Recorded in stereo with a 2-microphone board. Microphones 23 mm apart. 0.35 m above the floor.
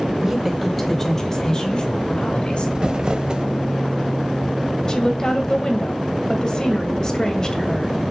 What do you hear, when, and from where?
0.2 s a woman speaking: 20° right (ahead or behind), 1.7 m; by 2.6 s 45° left (ahead or behind), 3 m
2.8 s crumpling: 40° right (ahead or behind), 0.7 m
4.9 s a woman speaking: 30° left (ahead or behind), 1.7 m